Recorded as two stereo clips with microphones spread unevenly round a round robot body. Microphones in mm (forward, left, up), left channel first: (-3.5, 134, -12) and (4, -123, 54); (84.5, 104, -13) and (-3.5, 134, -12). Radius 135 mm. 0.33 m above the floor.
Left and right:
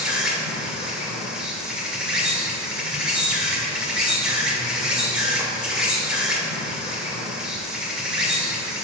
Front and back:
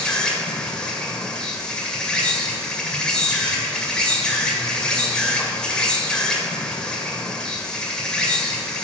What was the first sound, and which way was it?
An insect, 35° left.